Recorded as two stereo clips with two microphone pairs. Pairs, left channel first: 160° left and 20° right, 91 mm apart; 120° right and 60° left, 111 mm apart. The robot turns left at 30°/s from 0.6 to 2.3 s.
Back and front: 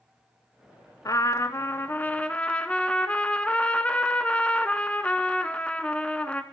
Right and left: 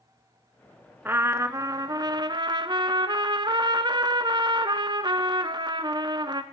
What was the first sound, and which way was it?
A trumpet, 125° left.